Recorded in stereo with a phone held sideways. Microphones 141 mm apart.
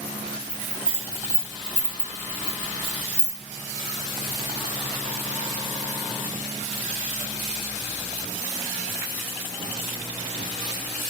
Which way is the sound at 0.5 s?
15° left (ahead or behind).